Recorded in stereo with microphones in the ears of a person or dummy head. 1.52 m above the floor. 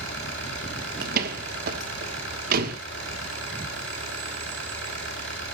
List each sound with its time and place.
0.0 s an engine running: 85° right, 8 m
1.0 s a door slam: 55° right (ahead or behind), 1.4 m